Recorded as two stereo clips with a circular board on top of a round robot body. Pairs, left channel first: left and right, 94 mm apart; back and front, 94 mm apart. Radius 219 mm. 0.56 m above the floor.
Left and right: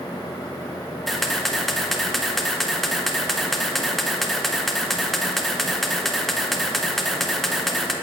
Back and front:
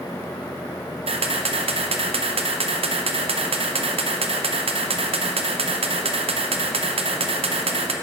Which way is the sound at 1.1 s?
5° left.